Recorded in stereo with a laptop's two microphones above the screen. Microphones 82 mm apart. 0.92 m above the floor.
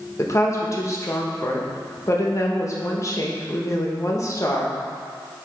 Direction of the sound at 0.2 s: 35° left (ahead or behind).